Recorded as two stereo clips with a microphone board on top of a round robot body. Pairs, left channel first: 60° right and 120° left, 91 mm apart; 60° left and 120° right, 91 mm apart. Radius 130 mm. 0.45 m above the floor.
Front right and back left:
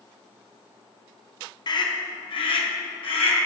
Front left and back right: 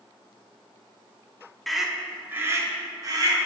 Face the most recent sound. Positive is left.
turn(degrees=-75)